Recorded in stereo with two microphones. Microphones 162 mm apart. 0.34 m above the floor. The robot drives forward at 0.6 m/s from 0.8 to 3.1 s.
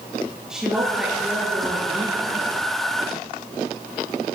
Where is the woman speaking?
5° right (ahead or behind), 7.5 m.